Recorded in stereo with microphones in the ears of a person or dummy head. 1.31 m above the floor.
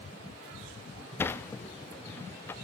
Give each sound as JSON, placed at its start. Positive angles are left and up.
{"t": 1.2, "sound": "a sliding door", "side_deg": 15, "distance_m": 0.6}